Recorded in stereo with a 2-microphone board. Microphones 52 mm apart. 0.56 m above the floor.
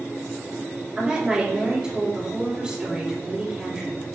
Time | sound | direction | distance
1.0 | a woman speaking | 20° right (ahead or behind) | 1.9 m